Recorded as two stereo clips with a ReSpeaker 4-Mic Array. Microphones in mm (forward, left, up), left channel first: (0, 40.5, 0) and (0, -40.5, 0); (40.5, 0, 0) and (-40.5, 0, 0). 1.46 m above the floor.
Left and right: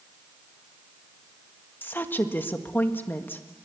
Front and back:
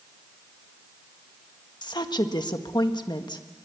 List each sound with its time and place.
1.8 s a woman speaking: 25° left, 1.6 m